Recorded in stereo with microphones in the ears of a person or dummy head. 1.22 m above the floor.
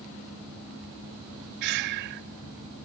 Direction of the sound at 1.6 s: 55° right (ahead or behind).